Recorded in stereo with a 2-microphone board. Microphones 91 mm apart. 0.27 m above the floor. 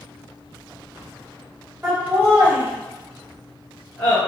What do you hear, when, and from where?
1.8 s laughter: 20° right (ahead or behind), 1.6 m; by 4.2 s 20° left (ahead or behind), 1.8 m